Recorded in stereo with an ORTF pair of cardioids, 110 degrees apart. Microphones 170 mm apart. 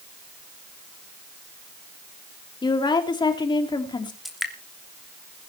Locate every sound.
2.6 s a woman speaking: 25° left, 3.5 m
4.2 s dripping: straight ahead, 3 m